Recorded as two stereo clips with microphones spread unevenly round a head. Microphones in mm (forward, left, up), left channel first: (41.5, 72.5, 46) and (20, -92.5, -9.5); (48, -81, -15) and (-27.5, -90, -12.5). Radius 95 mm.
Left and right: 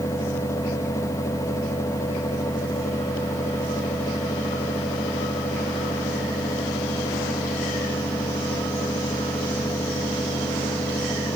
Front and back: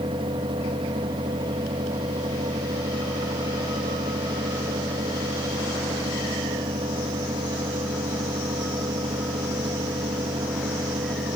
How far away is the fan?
About 1.1 m.